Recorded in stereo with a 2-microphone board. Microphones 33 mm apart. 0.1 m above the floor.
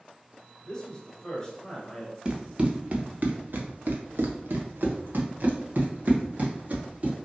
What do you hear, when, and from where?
0.7 s a man speaking: 20° left (ahead or behind), 1.6 m
2.2 s running footsteps: 30° right (ahead or behind), 1.1 m; by 7.2 s 50° right (ahead or behind), 2 m